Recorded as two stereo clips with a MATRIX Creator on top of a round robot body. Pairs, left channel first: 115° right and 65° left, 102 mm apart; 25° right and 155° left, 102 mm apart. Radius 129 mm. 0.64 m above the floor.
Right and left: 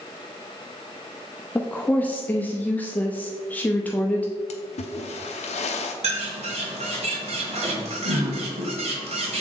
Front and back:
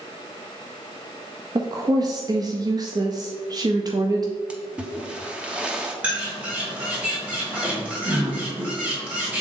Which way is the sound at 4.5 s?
120° right.